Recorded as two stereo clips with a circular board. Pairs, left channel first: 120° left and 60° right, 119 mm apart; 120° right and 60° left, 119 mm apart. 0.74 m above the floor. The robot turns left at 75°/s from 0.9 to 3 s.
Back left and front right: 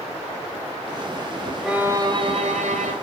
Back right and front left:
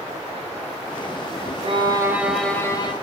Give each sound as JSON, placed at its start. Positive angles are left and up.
{"t": 1.6, "sound": "a violin", "azimuth_deg": 25, "distance_m": 3.0}